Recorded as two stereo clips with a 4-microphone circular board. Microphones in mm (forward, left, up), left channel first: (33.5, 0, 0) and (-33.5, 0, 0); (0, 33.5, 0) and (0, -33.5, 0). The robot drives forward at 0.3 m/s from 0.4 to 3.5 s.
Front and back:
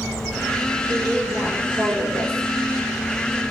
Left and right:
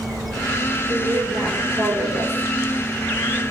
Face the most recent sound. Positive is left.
turn(degrees=-105)